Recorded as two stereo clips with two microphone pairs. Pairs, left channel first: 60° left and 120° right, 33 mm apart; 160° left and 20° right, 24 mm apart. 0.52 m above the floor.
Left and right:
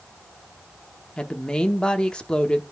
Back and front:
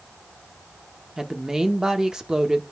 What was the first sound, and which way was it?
A woman speaking, 20° left.